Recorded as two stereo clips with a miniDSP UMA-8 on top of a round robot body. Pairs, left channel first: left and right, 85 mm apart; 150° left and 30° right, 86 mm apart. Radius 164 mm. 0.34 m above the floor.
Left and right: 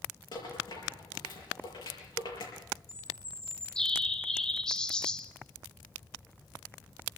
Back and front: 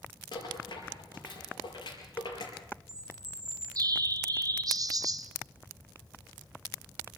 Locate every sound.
0.3 s a rattle: 120° left, 6 m
2.9 s a bird: 10° left, 1.3 m